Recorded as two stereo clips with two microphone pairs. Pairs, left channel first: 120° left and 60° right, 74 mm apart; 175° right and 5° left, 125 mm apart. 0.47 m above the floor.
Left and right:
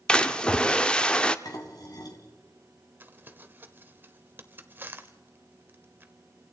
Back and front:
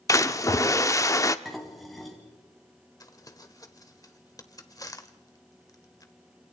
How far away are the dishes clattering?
About 2.5 m.